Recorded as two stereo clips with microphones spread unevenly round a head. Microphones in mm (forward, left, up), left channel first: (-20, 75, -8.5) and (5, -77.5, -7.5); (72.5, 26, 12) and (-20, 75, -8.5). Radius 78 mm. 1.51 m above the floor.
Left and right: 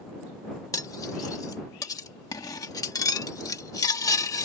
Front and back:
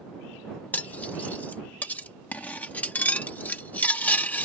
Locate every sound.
0.7 s cutlery clinking: 35° left